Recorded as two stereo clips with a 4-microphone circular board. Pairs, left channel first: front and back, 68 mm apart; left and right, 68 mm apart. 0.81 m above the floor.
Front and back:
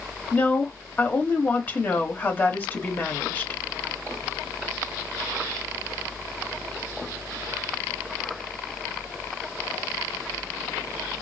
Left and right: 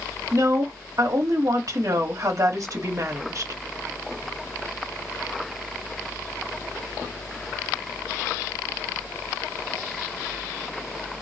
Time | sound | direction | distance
0.3 | a woman speaking | 60° right | 1.6 m